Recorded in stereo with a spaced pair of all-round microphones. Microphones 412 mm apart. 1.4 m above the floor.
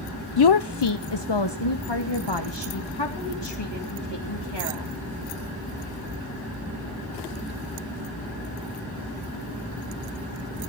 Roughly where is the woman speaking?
Left.